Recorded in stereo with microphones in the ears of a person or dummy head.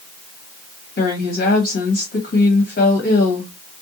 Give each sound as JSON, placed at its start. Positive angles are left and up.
{"t": 1.0, "sound": "a woman speaking", "side_deg": 55, "distance_m": 1.3}